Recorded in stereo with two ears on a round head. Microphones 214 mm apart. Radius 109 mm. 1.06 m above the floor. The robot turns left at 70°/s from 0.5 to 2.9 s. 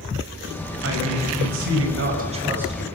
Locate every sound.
0.8 s a man speaking: 45° right, 6 m; by 2.9 s 170° left, 6 m